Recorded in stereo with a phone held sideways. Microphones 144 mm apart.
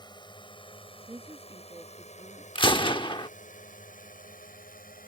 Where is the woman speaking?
20° right (ahead or behind).